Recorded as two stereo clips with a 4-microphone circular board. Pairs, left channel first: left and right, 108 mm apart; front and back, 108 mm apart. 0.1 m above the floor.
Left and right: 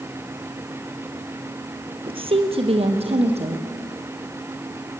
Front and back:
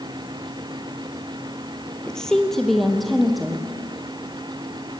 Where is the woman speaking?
80° right, 2.0 m; by 3.6 s 90° right, 3.5 m.